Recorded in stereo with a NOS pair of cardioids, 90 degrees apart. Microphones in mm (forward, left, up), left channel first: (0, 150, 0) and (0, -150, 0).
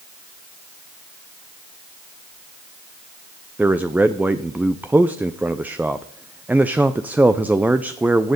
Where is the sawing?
No sawing in this recording.